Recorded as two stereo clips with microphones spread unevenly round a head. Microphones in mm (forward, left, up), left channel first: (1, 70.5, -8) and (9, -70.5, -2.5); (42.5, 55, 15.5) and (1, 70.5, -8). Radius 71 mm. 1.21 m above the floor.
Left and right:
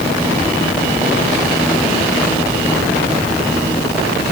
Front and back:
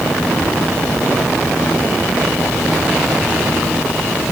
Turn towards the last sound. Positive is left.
No sound to turn to.